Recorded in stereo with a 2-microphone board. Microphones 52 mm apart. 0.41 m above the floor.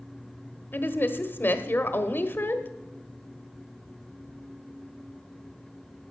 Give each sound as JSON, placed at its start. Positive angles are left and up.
{"t": 0.7, "sound": "a woman speaking", "side_deg": 40, "distance_m": 1.1}